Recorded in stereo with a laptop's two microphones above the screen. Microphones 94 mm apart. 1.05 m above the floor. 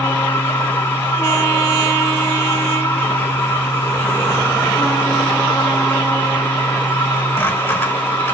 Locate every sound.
0.0 s a machine running: 25° left (ahead or behind), 1.4 m